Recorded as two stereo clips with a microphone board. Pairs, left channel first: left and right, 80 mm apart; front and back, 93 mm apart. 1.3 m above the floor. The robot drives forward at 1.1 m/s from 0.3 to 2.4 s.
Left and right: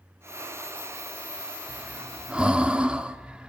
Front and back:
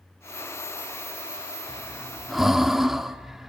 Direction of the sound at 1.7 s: 15° right.